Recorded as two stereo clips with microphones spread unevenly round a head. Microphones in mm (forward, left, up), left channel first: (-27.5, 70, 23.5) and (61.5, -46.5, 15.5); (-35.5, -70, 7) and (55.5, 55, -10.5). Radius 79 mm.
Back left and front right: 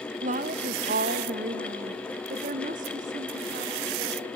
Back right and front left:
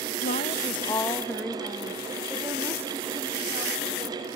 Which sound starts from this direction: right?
A woman speaking, at 0.2 s.